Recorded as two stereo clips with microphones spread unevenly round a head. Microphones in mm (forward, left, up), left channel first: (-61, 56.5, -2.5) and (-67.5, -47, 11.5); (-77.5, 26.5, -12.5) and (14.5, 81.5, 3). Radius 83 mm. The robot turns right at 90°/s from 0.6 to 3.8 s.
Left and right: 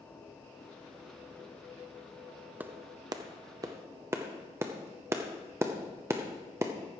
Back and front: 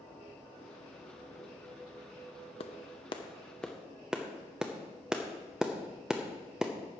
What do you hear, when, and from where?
2.6 s a clap: 150° right, 0.7 m; by 6.7 s 45° right, 0.7 m